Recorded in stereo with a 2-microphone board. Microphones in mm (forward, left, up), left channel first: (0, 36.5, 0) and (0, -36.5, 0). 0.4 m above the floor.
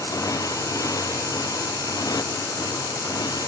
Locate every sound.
0.0 s a motorcycle: 50° left (ahead or behind); by 3.5 s 60° left (ahead or behind)